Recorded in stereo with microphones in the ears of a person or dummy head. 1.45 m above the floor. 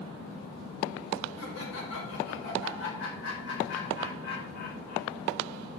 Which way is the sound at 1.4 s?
85° left.